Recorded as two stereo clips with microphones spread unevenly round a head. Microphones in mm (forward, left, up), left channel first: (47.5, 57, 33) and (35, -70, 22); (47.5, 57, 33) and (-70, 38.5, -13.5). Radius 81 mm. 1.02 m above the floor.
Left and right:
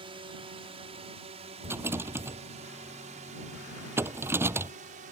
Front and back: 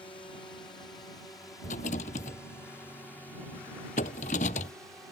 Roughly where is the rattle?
Ahead right.